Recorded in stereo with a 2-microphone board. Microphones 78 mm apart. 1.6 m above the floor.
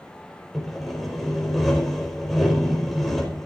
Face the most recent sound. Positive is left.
turn(degrees=0)  # may be behind; listen again after turning